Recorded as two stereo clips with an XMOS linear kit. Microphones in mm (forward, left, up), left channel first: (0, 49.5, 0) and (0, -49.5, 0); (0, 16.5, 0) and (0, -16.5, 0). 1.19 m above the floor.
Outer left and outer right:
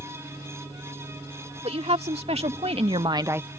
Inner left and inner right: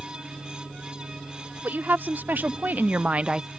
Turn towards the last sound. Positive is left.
turn(degrees=-10)  # may be behind; listen again after turning